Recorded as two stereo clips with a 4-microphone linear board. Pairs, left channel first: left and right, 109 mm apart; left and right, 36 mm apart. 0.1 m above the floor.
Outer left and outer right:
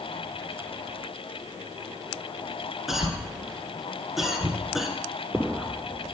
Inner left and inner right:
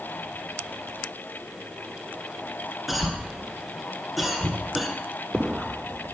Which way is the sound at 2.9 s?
Centre (ahead or behind).